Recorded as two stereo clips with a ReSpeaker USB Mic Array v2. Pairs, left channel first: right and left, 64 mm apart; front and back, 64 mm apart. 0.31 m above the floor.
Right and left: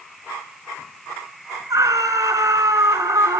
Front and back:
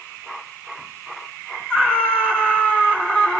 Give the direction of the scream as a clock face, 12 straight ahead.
9 o'clock.